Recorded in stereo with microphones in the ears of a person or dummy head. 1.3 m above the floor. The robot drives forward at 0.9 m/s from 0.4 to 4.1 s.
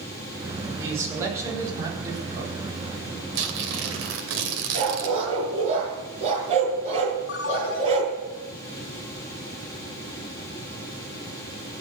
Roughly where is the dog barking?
Right.